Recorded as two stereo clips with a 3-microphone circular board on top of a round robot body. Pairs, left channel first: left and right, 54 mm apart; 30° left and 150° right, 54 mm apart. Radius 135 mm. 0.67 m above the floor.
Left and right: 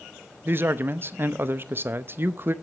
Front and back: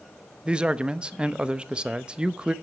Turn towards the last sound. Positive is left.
turn(degrees=-90)